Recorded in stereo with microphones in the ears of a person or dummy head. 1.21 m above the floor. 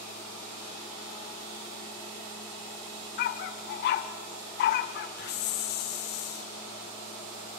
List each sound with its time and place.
3.2 s a dog barking: 55° left (ahead or behind), 1.3 m
5.2 s a hiss: 60° left (ahead or behind), 1.6 m